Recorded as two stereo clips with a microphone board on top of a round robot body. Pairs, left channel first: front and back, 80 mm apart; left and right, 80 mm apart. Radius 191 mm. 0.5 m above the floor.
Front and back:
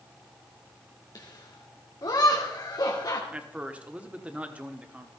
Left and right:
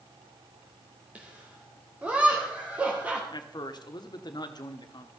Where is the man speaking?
110° left, 1.4 m.